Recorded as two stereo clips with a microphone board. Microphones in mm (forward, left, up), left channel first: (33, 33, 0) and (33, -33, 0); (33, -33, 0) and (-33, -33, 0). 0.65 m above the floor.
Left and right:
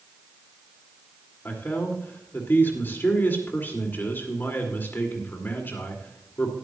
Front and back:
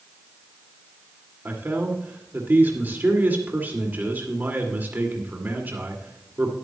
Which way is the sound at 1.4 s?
130° left.